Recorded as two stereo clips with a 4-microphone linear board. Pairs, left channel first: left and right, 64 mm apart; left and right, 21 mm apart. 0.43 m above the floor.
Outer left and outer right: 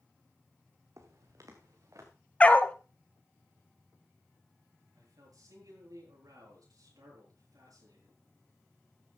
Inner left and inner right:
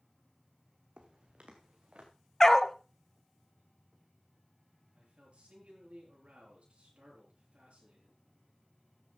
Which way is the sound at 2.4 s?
20° left (ahead or behind).